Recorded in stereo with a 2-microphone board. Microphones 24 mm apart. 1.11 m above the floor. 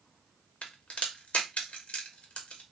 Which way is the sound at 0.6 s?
55° left (ahead or behind).